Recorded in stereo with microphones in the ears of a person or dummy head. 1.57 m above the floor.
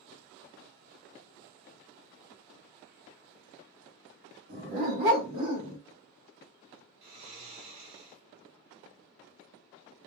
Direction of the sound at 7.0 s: 50° right (ahead or behind).